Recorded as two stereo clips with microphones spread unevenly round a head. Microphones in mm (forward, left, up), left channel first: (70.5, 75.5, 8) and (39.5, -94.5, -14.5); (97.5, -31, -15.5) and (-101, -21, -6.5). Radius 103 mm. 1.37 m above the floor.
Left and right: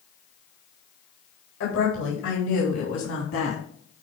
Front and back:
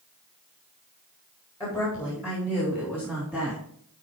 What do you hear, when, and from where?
1.6 s a woman speaking: 70° left, 4 m; by 3.6 s 90° left, 3 m